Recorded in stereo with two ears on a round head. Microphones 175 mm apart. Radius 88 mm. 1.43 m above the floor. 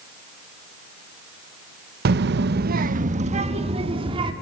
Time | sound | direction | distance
2.0 | a child speaking | 50° right (ahead or behind) | 0.8 m